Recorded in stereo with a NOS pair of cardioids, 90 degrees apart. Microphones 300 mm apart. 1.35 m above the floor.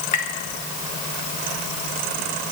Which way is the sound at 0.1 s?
60° left.